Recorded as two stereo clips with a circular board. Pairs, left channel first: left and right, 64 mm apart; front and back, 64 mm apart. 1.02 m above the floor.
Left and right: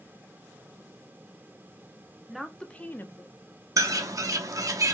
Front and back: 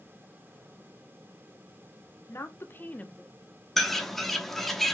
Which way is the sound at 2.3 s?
5° right.